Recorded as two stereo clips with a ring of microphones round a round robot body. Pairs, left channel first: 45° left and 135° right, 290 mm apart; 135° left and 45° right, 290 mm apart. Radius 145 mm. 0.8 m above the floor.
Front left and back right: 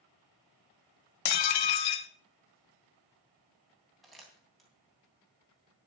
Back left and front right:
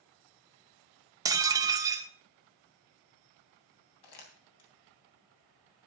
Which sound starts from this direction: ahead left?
Dishes clattering, at 1.2 s.